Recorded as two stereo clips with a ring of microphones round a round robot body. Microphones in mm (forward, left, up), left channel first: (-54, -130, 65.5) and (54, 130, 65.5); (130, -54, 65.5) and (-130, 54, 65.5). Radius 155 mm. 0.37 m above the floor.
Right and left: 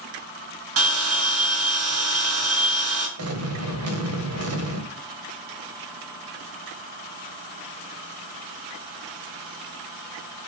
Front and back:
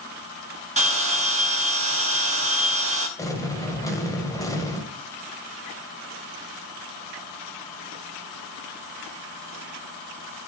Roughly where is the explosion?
Ahead left.